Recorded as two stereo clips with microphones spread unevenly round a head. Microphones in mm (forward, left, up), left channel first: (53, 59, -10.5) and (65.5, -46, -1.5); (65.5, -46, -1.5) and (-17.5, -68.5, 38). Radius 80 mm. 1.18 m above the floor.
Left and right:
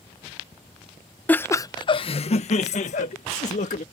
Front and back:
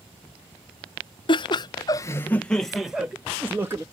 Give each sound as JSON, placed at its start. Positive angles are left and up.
{"t": 1.3, "sound": "laughter", "azimuth_deg": 25}